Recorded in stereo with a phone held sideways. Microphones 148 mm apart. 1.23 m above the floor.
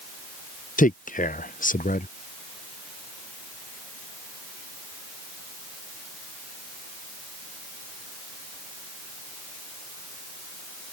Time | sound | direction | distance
0.8 | a man speaking | 60° left (ahead or behind) | ?